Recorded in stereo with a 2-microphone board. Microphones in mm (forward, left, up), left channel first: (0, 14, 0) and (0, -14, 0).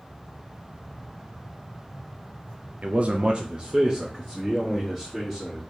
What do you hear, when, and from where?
2.8 s a man speaking: 55° right (ahead or behind), 0.5 m; by 5.6 s 5° right (ahead or behind), 1.8 m